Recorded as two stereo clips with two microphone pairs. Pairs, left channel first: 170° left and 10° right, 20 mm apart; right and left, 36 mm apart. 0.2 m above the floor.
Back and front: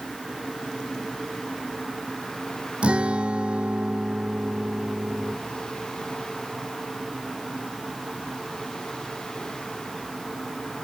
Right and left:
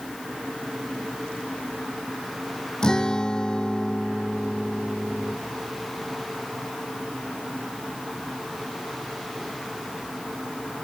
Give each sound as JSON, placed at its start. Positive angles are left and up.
{"t": 2.8, "sound": "a guitar", "azimuth_deg": -20}